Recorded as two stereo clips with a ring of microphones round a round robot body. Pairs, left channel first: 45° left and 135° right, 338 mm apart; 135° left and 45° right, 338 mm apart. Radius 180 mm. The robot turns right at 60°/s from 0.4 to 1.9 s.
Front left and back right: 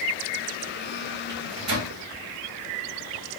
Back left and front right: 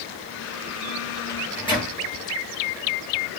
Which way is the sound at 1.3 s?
Straight behind.